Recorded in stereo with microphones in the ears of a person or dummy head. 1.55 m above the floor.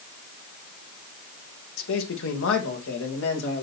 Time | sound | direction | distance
1.8 | a man speaking | 65° left (ahead or behind) | 1.5 m